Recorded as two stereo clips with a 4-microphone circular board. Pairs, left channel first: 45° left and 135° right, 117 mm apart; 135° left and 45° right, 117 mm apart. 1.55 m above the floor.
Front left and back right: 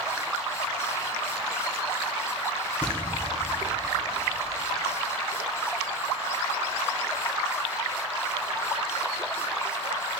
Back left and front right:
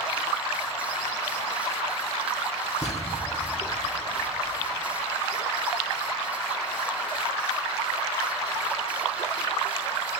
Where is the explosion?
125° left, 1.2 m.